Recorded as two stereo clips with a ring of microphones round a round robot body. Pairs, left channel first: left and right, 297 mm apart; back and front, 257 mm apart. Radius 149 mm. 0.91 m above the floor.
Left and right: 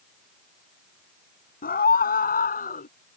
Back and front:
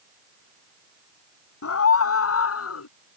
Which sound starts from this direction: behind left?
A scream, at 1.6 s.